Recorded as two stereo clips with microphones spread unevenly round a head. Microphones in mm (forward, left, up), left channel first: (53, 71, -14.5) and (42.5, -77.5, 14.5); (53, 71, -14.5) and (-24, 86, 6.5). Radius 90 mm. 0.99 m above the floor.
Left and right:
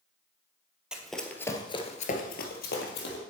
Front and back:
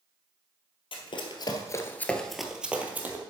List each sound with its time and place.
0.9 s running footsteps: 20° right, 1.6 m; by 3.2 s 115° left, 2 m